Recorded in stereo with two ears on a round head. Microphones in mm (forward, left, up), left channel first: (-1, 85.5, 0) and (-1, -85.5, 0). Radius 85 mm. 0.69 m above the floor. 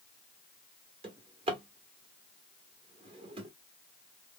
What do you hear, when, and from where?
1.0 s a drawer: 30° right (ahead or behind), 1.0 m